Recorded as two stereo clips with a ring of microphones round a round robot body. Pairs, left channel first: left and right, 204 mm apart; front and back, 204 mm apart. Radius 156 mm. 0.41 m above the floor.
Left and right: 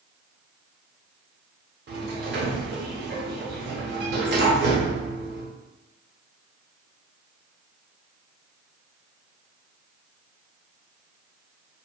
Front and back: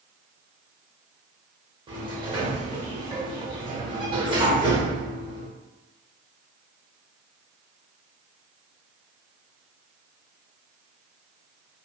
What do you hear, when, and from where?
1.9 s a sliding door: 115° right, 0.7 m